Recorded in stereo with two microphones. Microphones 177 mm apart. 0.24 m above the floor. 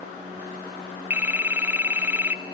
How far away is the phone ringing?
About 0.7 m.